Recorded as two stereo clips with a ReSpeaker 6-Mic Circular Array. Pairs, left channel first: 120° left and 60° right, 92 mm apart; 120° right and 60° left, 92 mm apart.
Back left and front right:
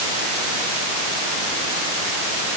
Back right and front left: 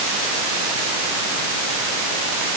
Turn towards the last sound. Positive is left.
No sound to turn to.